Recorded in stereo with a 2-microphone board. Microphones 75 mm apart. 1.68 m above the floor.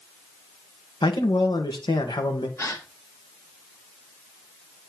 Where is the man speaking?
75° left (ahead or behind), 1.8 m.